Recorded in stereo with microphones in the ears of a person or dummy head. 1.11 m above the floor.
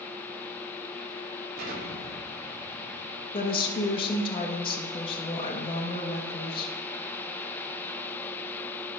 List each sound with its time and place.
1.6 s an explosion: 55° right (ahead or behind), 2.5 m
3.3 s a woman speaking: 35° left (ahead or behind), 1.2 m